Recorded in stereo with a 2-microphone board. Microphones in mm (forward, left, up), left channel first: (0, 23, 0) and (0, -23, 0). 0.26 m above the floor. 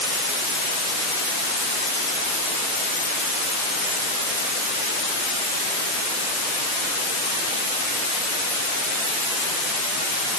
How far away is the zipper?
I don't hear a zipper.